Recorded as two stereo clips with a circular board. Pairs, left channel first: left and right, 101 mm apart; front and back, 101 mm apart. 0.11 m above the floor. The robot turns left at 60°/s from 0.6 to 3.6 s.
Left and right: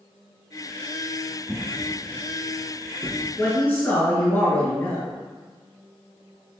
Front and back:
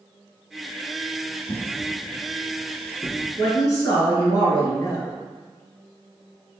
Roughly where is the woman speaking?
Ahead left.